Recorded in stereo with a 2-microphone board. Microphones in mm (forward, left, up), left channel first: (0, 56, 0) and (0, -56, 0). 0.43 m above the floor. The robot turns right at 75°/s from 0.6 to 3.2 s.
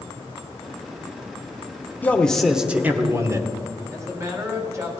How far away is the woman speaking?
About 2.5 m.